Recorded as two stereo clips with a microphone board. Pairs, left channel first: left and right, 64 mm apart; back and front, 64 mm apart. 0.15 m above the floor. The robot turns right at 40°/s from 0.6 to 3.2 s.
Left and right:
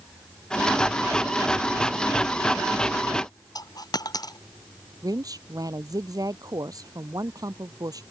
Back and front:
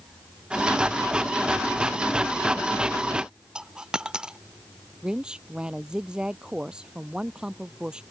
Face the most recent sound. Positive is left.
turn(degrees=-80)